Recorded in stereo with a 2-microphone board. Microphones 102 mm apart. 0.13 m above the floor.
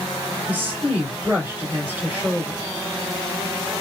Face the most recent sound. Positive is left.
turn(degrees=-20)  # may be behind; listen again after turning